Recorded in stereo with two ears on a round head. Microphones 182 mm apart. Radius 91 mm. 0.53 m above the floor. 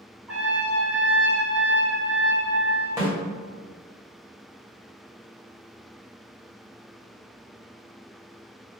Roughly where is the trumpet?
Centre.